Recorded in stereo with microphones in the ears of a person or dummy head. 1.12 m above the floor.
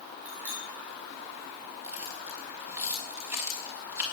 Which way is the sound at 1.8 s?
10° right (ahead or behind).